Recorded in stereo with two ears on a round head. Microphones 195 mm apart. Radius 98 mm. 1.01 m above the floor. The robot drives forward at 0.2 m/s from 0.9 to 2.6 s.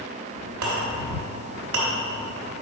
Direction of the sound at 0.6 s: 85° right.